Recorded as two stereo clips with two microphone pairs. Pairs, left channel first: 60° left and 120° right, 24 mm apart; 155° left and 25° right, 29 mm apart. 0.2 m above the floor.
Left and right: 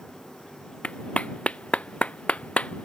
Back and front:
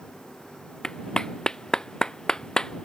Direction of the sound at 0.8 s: 90° left.